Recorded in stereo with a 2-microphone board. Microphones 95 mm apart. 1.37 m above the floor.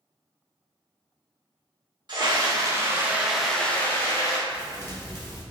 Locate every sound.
2.1 s a scream: 50° right (ahead or behind), 0.9 m; by 4.4 s 35° left (ahead or behind), 0.8 m
4.5 s a thud: 20° left (ahead or behind), 1.4 m